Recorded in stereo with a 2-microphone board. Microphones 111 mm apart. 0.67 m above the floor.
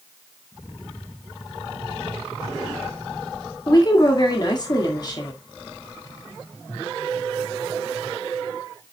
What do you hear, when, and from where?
3.7 s a woman speaking: 35° left (ahead or behind), 1.5 m